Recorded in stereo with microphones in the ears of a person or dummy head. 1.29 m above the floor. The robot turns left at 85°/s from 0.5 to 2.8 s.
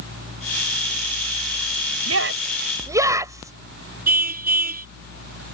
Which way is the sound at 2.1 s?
80° right.